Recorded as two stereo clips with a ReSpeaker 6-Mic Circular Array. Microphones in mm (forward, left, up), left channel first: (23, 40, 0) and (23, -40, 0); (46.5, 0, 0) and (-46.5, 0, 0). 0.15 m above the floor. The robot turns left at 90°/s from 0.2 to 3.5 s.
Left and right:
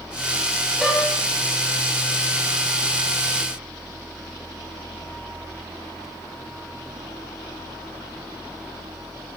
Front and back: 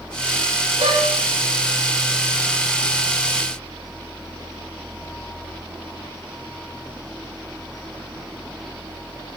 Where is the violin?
175° right, 6 m; by 1.1 s 155° left, 6 m.